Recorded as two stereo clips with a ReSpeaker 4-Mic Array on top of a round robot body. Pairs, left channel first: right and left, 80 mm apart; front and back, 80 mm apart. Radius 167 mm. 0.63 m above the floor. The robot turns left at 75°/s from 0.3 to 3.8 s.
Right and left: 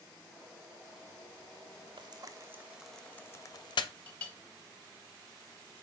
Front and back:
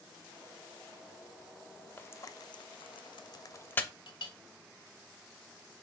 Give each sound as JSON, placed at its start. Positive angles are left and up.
{"t": 2.0, "sound": "frying", "azimuth_deg": 70, "distance_m": 0.5}
{"t": 4.1, "sound": "a clink", "azimuth_deg": -20, "distance_m": 1.1}